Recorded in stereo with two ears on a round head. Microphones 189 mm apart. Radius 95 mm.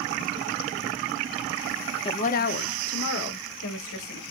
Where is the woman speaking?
25° left (ahead or behind), 0.5 m; by 4.2 s 70° left (ahead or behind), 1.9 m.